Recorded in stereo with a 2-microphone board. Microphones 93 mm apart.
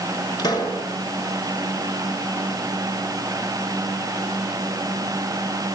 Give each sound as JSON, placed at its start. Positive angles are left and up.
{"t": 0.4, "sound": "a pop", "side_deg": 45, "distance_m": 6.0}